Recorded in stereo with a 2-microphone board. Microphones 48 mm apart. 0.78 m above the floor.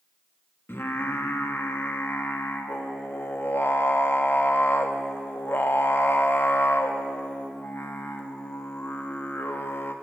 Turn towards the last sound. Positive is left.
turn(degrees=55)  # may be behind; listen again after turning